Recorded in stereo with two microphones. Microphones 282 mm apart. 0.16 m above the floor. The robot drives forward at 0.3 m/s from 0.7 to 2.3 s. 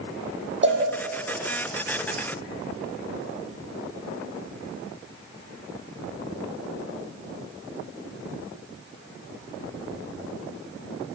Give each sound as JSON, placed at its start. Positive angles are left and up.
{"t": 0.6, "sound": "a cowbell", "side_deg": -40, "distance_m": 6.0}